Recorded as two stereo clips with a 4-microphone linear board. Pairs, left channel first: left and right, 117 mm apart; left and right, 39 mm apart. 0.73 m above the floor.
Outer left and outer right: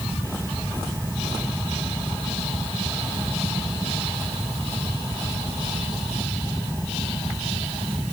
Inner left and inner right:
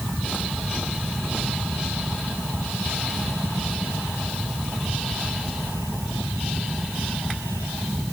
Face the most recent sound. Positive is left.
No sound to turn to.